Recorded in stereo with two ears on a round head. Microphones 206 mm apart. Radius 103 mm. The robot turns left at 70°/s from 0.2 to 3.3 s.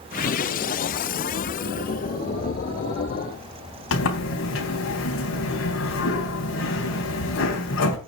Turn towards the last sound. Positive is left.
turn(degrees=65)  # may be behind; listen again after turning